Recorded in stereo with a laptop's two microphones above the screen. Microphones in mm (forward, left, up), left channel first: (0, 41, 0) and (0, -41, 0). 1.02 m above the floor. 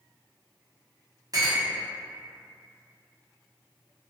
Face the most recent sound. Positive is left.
turn(degrees=-50)  # may be behind; listen again after turning